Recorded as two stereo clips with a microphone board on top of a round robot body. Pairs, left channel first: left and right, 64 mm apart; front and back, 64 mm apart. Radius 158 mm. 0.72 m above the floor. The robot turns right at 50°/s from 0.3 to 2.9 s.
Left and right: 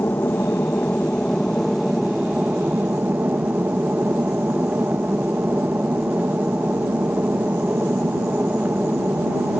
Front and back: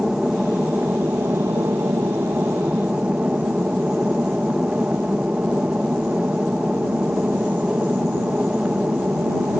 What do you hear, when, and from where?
0.0 s an aircraft: 105° left; by 9.6 s 125° right